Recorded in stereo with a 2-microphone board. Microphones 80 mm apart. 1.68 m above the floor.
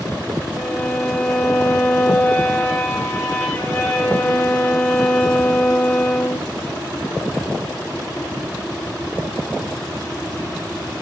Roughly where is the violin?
Centre.